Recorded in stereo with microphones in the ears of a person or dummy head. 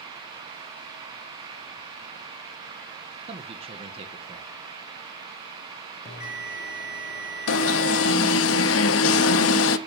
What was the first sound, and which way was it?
A man speaking, 35° right (ahead or behind).